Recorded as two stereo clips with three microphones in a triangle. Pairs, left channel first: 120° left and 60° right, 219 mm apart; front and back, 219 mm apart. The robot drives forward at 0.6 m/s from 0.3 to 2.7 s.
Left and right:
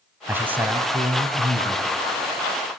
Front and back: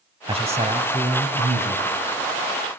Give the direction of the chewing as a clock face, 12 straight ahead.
No chewing in this recording.